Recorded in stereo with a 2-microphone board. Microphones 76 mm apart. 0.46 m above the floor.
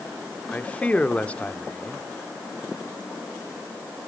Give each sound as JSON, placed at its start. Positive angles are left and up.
{"t": 0.5, "sound": "a man speaking", "side_deg": 15, "distance_m": 0.9}